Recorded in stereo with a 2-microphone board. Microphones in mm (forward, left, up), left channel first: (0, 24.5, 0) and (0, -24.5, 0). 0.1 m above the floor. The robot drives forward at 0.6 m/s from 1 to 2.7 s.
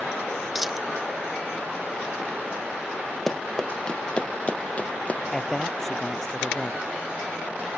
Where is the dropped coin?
5° right (ahead or behind).